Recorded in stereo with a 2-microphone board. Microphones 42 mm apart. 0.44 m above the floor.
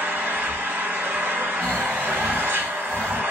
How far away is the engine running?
About 1.3 m.